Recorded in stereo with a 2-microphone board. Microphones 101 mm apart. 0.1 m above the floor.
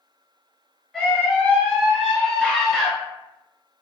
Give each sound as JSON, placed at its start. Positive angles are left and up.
{"t": 0.9, "sound": "a scream", "side_deg": 0, "distance_m": 1.3}